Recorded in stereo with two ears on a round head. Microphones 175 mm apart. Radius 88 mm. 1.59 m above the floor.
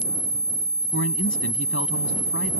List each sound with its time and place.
0.9 s a man speaking: 70° left (ahead or behind); by 2.5 s 65° left (ahead or behind)